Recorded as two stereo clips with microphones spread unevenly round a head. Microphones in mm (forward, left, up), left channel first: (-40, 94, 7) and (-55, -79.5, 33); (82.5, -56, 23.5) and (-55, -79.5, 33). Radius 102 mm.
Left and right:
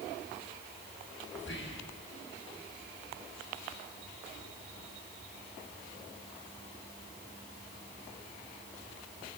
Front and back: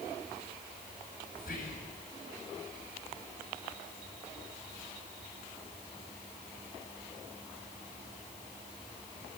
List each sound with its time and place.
1.4 s whispering: 65° left, 5.5 m